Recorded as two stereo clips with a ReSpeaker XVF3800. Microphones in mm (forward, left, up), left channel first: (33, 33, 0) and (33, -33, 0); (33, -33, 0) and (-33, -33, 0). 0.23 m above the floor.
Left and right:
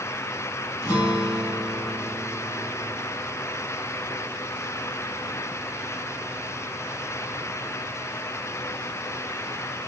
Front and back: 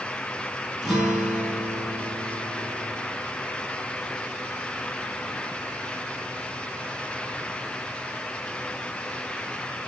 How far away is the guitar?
About 2 m.